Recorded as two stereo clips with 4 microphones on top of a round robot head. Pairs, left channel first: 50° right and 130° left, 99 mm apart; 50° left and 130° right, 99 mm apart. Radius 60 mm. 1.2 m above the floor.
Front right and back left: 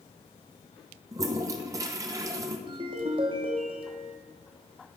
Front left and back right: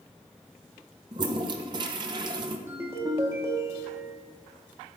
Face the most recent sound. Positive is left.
turn(degrees=165)